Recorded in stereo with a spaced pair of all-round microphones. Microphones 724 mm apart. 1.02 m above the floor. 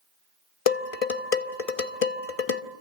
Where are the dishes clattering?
55° left (ahead or behind), 1.1 m.